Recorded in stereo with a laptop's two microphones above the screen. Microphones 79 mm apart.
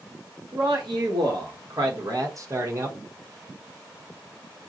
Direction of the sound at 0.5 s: 65° right (ahead or behind).